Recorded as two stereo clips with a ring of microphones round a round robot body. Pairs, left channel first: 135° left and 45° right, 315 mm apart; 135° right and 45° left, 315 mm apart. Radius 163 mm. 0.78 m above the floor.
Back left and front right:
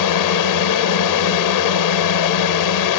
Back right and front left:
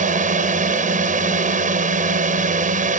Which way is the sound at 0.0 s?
110° left.